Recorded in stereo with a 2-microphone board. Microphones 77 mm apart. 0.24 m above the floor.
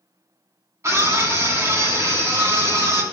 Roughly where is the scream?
Right.